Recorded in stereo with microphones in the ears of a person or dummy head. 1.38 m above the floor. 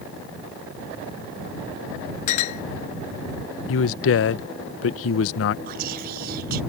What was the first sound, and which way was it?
A clink, 40° left (ahead or behind).